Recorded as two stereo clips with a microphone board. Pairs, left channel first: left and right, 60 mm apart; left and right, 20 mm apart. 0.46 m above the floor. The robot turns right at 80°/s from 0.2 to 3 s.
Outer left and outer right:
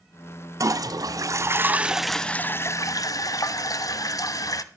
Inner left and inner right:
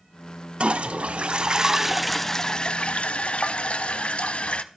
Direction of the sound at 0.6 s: 120° right.